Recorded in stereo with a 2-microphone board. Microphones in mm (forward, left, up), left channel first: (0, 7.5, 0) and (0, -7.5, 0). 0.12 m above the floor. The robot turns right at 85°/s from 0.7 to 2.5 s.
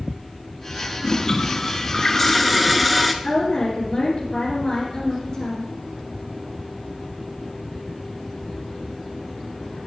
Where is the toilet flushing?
50° left, 0.6 m; by 3.1 s straight behind, 0.6 m.